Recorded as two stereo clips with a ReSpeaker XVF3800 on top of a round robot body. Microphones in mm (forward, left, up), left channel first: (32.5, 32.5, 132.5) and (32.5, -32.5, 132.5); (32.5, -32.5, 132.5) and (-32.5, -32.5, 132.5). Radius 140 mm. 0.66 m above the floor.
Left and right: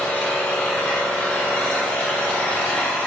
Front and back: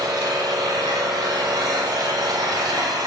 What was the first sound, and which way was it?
An engine running, 165° left.